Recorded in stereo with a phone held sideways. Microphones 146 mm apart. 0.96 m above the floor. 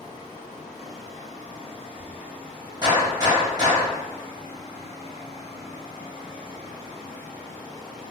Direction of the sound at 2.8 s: 25° right (ahead or behind).